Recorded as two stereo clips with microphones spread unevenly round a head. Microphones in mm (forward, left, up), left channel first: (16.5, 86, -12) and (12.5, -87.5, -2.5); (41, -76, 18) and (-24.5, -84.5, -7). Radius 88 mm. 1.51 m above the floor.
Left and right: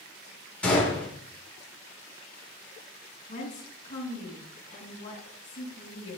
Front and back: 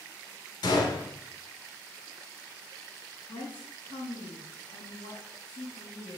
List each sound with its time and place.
0.6 s a gunshot: 5° left, 6.5 m
3.3 s a woman speaking: 40° left, 6 m